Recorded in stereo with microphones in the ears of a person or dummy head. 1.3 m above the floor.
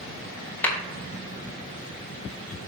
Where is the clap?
10° left (ahead or behind), 4.5 m.